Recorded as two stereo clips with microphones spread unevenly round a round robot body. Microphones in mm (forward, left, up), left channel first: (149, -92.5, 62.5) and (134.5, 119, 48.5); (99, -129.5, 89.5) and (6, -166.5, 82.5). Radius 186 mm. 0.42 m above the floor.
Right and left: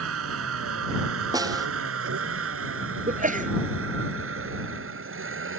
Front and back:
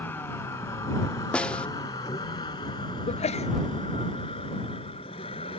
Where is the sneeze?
40° left.